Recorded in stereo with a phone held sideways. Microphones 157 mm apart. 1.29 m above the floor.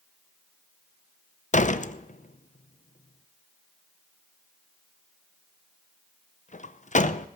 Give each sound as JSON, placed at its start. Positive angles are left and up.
{"t": 1.5, "sound": "a door slam", "side_deg": 55, "distance_m": 0.6}